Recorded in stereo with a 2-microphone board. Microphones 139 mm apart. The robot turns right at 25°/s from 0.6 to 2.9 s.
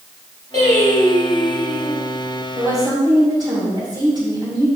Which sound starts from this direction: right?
A woman speaking, at 2.5 s.